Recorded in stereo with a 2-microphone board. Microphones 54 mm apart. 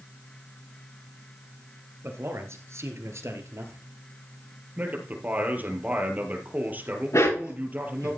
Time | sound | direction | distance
2.0 | a man speaking | 55° right (ahead or behind) | 2.5 m
4.8 | a man speaking | 35° right (ahead or behind) | 4 m
7.1 | a dog barking | 70° left (ahead or behind) | 7.5 m